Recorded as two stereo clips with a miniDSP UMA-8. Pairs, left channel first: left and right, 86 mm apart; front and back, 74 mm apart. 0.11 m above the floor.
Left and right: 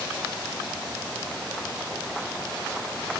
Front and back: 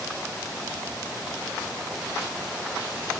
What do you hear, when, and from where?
Only background noise.